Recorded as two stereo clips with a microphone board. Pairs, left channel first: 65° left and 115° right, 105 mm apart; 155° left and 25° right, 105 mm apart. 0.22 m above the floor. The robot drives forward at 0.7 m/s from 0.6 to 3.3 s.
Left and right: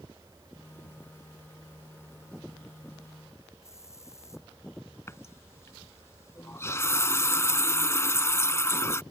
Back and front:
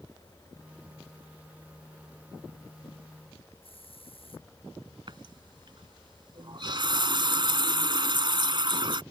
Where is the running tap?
5° left.